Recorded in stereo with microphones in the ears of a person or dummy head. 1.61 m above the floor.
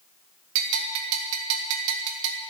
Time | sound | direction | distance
0.6 | a bell | 80° right | 1.5 m